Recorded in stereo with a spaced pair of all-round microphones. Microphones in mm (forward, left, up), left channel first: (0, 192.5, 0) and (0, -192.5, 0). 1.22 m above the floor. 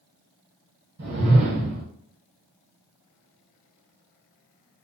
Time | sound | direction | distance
1.0 | a whoosh | 40° right (ahead or behind) | 1.2 m